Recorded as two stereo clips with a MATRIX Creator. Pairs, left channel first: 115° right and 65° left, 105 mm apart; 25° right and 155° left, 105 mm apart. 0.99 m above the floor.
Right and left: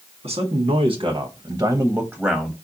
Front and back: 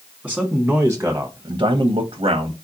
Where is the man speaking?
70° left, 1.1 m; by 2.5 s 165° left, 0.8 m.